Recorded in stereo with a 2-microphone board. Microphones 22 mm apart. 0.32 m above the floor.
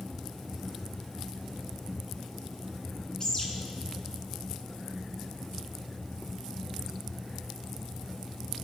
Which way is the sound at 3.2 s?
35° left (ahead or behind).